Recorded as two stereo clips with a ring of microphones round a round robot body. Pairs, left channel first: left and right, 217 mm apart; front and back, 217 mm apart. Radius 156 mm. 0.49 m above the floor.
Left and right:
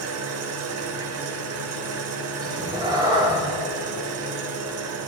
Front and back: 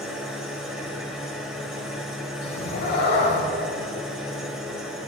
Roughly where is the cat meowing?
Ahead.